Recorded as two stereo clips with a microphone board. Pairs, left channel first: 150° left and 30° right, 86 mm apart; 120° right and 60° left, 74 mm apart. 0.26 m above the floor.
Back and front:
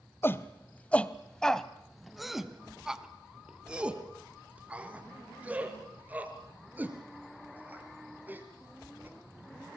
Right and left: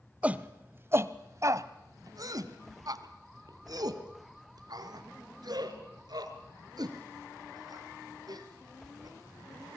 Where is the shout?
120° left, 1.0 m; by 9.8 s 35° left, 5 m.